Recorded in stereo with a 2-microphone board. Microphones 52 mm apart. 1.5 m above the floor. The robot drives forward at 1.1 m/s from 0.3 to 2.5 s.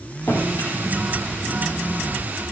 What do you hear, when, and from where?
0.3 s a drawer: 45° left (ahead or behind), 2.5 m; by 2.2 s 65° left (ahead or behind), 1.9 m